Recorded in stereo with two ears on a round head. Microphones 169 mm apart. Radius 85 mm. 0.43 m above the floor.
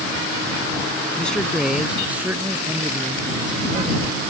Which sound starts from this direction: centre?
A man speaking, at 1.2 s.